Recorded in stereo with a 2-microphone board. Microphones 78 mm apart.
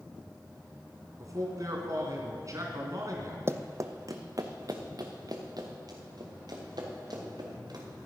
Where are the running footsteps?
35° right (ahead or behind), 0.6 m; by 7.8 s 60° right (ahead or behind), 4 m.